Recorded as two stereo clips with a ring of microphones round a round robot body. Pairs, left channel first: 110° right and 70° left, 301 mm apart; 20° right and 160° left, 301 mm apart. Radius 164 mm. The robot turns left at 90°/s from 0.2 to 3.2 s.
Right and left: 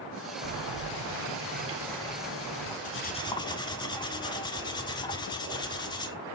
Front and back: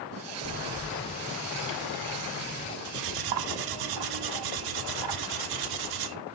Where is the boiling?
110° left, 4.5 m; by 2.8 s 100° right, 4.5 m.